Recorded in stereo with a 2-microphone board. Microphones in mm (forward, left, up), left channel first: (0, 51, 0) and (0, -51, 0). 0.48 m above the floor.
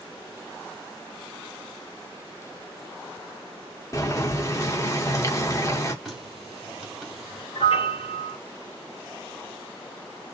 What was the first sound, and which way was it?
Boiling, 30° left (ahead or behind).